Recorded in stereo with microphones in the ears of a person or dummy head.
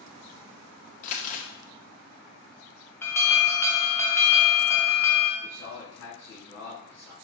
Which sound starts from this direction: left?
Crumpling, at 1.0 s.